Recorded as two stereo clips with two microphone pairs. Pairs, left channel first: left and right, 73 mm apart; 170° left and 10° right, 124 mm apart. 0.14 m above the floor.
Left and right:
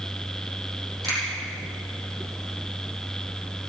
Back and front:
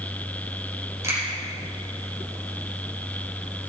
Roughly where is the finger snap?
Right.